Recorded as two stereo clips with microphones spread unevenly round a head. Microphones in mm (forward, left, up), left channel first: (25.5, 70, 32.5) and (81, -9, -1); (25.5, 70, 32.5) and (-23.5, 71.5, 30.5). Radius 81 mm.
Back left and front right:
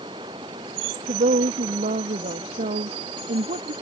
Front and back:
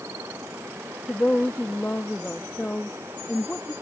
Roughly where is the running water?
Behind right.